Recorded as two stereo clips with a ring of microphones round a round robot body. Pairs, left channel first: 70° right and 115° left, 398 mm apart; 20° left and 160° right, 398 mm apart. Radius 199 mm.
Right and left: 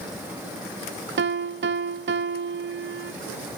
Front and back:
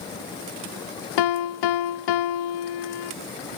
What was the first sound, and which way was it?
A piano, 50° left.